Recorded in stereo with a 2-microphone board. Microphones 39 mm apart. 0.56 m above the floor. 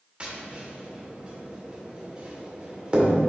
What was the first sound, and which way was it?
Tapping, 30° right (ahead or behind).